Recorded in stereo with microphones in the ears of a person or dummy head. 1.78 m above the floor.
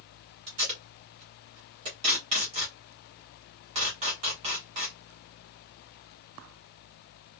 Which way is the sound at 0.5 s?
30° right (ahead or behind).